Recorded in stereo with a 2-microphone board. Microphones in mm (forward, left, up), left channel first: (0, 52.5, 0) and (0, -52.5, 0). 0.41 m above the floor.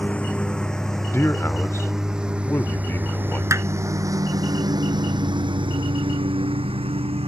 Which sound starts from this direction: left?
A man speaking, at 1.1 s.